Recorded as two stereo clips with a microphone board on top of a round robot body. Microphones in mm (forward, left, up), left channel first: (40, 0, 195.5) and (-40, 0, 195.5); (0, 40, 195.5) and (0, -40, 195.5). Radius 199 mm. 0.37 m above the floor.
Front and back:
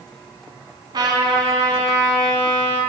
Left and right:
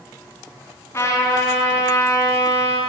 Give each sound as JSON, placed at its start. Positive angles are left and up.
{"t": 0.9, "sound": "a trumpet", "azimuth_deg": 150, "distance_m": 4.0}